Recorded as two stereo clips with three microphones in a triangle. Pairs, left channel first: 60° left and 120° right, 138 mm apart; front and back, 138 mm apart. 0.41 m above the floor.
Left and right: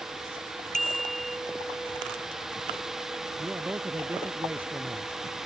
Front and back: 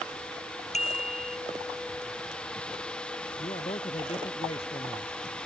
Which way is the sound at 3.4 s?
45° right.